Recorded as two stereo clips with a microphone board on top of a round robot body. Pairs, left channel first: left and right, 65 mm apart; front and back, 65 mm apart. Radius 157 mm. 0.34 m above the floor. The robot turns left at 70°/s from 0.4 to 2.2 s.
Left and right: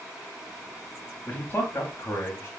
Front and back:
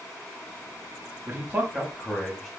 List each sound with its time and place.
1.3 s a man speaking: 140° left, 1.0 m; by 2.5 s 70° left, 1.0 m